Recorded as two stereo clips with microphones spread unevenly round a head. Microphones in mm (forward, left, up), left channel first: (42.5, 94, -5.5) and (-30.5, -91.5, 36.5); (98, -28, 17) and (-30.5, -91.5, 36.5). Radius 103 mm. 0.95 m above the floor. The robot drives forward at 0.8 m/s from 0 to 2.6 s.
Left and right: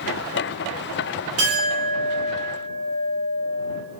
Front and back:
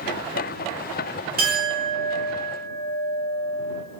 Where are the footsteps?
I don't hear footsteps.